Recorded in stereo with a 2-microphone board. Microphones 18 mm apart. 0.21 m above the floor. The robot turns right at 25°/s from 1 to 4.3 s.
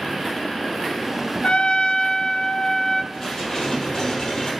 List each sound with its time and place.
1.4 s a trumpet: 90° left, 0.6 m; by 3.0 s 130° left, 0.6 m
3.1 s dishes clattering: 15° left (ahead or behind), 4.5 m; by 4.5 s 45° left (ahead or behind), 4.5 m